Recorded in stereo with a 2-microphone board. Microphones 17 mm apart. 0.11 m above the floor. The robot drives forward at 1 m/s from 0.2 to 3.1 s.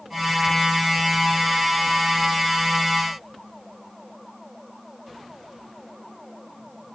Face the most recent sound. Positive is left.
No sound to turn to.